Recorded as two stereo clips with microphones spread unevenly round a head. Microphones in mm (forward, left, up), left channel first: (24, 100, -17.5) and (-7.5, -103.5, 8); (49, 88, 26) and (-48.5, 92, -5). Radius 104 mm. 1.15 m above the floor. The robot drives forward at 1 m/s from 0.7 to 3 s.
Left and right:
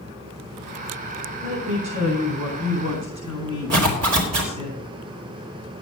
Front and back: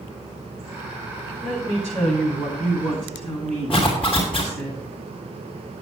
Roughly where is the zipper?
Right.